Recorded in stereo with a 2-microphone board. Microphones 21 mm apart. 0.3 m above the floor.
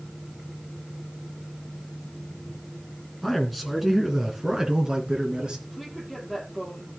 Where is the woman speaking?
5° right (ahead or behind), 9.5 m.